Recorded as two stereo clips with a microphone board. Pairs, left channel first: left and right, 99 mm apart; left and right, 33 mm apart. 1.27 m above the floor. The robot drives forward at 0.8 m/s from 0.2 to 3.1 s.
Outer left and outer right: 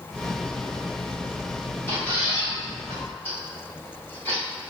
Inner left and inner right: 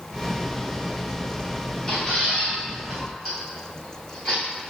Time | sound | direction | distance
1.9 | a squeak | 25° left (ahead or behind) | 1.4 m